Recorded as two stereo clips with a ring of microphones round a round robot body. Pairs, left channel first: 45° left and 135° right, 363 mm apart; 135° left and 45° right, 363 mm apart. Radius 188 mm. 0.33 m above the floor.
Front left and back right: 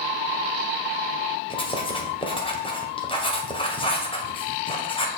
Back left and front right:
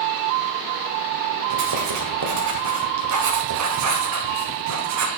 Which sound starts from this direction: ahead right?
Writing, at 1.5 s.